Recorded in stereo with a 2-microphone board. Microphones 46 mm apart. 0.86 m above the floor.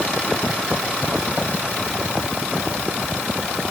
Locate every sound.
Only background noise.